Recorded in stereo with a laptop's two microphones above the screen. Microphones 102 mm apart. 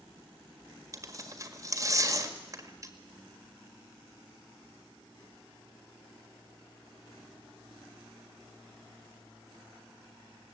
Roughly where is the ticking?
No ticking in this recording.